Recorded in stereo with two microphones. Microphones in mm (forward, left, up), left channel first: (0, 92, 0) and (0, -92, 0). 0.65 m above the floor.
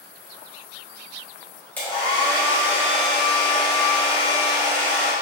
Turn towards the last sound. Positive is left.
turn(degrees=10)  # may be behind; listen again after turning